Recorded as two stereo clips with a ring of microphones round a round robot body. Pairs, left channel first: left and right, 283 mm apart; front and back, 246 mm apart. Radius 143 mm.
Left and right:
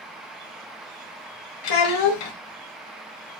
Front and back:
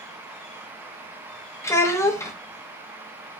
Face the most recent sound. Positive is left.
turn(degrees=80)